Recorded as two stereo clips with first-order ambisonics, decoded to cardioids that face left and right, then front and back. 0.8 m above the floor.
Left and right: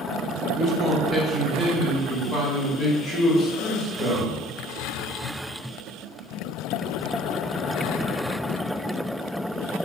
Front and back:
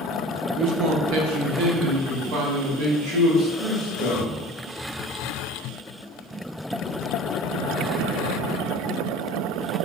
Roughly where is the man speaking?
Behind right.